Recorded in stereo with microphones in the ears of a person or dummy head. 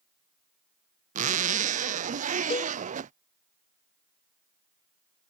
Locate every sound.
1.1 s a zipper: 30° right (ahead or behind)
2.5 s a cowbell: 35° left (ahead or behind)